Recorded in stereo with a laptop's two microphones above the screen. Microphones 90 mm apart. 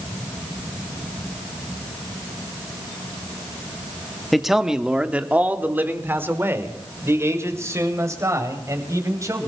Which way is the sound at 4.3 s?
Centre (ahead or behind).